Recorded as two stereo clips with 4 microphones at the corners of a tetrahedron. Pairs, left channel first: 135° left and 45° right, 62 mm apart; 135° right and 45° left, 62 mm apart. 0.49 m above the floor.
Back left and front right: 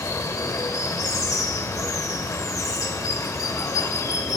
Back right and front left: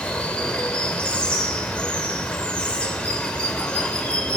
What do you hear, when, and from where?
0.0 s running water: 155° left, 0.9 m